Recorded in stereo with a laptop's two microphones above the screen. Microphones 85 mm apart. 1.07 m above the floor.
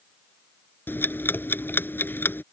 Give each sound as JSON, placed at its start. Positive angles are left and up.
{"t": 0.9, "sound": "ticking", "side_deg": 25}